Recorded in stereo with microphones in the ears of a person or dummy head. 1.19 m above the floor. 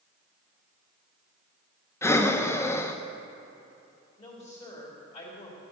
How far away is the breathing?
About 0.6 m.